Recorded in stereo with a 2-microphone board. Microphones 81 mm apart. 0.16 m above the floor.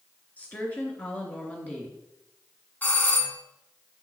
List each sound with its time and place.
0.4 s a woman speaking: 20° left (ahead or behind), 2.5 m
2.8 s a doorbell: 20° left (ahead or behind), 1.6 m